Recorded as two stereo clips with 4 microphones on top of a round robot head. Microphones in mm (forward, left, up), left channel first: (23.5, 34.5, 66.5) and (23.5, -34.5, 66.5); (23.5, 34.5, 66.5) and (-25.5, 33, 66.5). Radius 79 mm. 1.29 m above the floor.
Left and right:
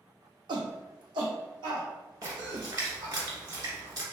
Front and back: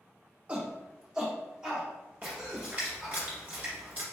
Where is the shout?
110° right, 0.7 m; by 3.1 s 95° right, 2 m.